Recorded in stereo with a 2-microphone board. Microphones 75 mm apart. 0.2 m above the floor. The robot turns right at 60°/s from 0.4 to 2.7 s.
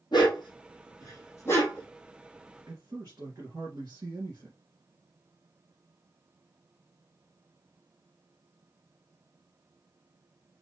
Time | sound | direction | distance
0.1 | a dog barking | 80° left | 2.5 m
2.7 | a man speaking | 60° right (ahead or behind) | 2.5 m